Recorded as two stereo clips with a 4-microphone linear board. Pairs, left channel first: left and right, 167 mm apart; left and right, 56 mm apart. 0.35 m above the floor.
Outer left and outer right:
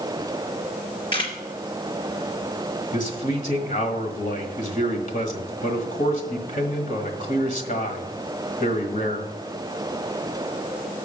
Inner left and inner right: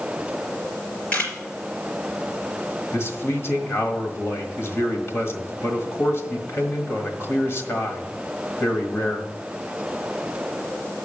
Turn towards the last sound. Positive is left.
turn(degrees=50)  # may be behind; listen again after turning